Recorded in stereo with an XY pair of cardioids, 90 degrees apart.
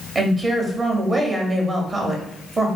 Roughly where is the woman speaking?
Ahead right.